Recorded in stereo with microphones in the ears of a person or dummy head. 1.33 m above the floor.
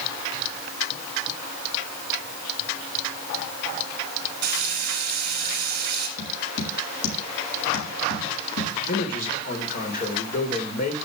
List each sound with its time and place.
4.4 s frying: 55° right (ahead or behind), 4 m
6.2 s tapping: 80° left, 6 m
8.9 s a man speaking: 40° left (ahead or behind), 4 m